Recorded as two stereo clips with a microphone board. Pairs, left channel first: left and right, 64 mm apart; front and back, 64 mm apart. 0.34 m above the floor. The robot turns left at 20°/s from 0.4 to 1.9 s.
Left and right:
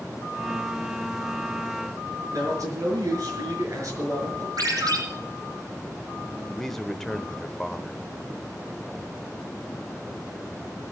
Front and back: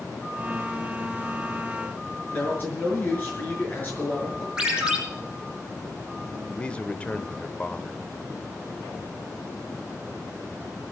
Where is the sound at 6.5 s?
15° left, 0.9 m.